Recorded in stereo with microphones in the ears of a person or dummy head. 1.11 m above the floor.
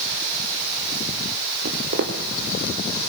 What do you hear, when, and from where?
1.6 s footsteps: 40° right (ahead or behind), 1.8 m